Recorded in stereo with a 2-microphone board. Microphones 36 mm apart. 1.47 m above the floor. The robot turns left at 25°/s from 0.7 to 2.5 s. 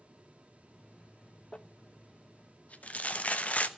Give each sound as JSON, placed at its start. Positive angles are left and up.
{"t": 1.5, "sound": "crumpling", "side_deg": 30, "distance_m": 0.8}